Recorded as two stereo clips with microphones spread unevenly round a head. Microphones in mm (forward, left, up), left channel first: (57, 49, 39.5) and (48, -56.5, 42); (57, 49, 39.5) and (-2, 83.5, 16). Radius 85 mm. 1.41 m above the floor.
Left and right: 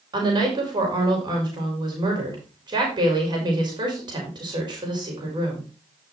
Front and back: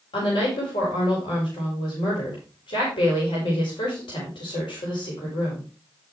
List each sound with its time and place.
0.1 s a woman speaking: 50° right, 4 m